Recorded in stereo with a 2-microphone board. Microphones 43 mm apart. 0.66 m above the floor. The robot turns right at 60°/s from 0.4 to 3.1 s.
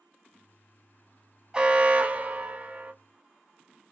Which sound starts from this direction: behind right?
An alarm, at 1.5 s.